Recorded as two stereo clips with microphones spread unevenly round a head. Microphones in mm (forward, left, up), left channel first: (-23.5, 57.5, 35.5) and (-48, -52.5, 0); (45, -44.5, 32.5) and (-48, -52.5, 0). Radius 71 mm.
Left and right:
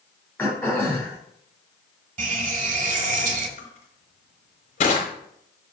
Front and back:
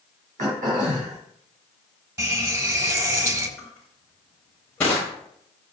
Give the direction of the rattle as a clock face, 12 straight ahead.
No rattle in this recording.